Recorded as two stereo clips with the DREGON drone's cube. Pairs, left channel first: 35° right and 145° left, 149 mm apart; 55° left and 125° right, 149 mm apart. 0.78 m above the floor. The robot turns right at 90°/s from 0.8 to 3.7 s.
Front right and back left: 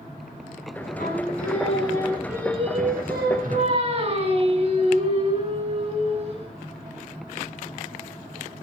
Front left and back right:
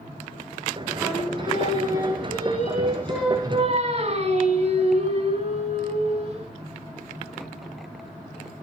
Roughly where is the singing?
Ahead right.